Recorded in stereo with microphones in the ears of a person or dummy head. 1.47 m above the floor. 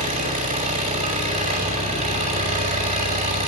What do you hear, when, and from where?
0.0 s an engine running: 30° right (ahead or behind), 6 m